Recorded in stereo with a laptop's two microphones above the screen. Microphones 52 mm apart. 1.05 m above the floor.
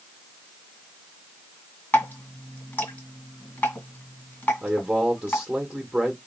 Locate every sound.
1.9 s dripping: 35° left (ahead or behind), 1.8 m
4.6 s a man speaking: 15° right (ahead or behind), 1.0 m